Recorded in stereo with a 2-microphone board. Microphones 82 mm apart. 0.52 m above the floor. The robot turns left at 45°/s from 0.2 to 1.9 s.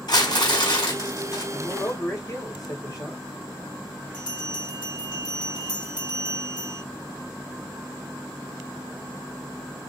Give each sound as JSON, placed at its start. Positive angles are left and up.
{"t": 0.1, "sound": "crumpling", "azimuth_deg": 115, "distance_m": 3.5}
{"t": 1.5, "sound": "a man speaking", "side_deg": 55, "distance_m": 2.5}
{"t": 4.1, "sound": "a bell", "side_deg": 75, "distance_m": 2.0}